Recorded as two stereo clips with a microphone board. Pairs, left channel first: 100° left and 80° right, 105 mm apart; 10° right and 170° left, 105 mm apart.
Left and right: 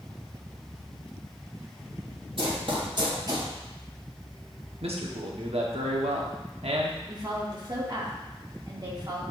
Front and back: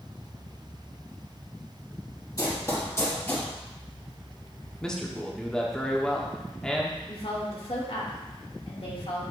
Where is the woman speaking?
30° right, 2 m.